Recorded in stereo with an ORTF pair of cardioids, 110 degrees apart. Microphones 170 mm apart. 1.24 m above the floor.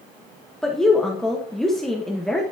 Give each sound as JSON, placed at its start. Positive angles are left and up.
{"t": 0.6, "sound": "a woman speaking", "azimuth_deg": 5, "distance_m": 1.2}